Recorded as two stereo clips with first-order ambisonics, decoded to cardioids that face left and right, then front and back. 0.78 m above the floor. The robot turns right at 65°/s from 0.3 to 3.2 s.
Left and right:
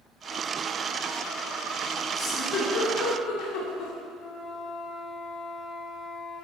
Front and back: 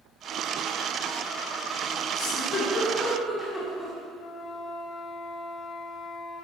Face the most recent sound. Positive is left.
turn(degrees=50)